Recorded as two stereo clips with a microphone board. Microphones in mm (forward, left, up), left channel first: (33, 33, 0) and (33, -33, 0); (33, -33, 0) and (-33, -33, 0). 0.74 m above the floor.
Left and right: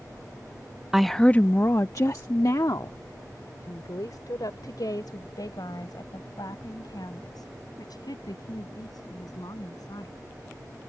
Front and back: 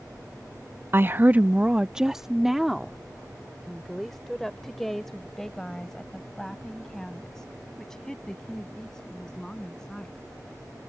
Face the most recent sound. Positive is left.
turn(degrees=80)